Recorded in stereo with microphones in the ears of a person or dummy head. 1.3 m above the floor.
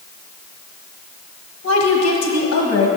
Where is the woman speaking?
75° left (ahead or behind), 1.8 m.